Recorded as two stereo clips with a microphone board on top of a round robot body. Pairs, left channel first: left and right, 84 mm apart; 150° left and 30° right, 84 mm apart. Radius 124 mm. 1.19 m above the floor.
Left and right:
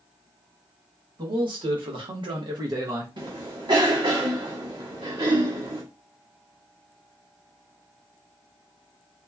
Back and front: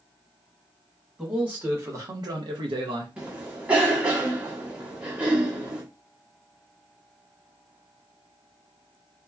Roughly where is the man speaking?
Right.